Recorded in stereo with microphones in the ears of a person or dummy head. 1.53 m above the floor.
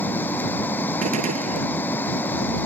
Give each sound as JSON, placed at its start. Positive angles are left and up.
{"t": 0.0, "sound": "running water", "side_deg": 10}
{"t": 1.0, "sound": "a gunshot", "side_deg": -40}